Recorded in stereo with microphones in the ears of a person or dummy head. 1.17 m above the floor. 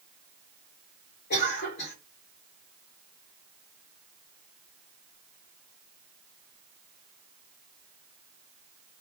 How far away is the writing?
No writing in this recording.